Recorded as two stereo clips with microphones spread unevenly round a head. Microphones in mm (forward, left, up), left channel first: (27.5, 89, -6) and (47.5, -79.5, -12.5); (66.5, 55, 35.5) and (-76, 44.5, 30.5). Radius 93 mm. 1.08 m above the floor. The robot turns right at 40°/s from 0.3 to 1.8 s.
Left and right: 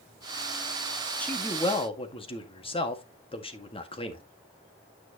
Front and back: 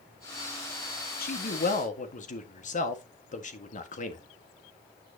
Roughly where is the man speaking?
Ahead.